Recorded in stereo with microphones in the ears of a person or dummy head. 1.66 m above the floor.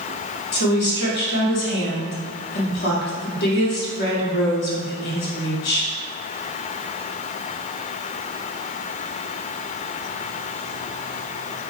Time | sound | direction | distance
0.5 | a woman speaking | 55° left (ahead or behind) | 0.7 m